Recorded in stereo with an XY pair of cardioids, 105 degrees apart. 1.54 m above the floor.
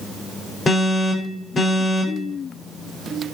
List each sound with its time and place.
0.7 s an alarm: 35° left, 6.5 m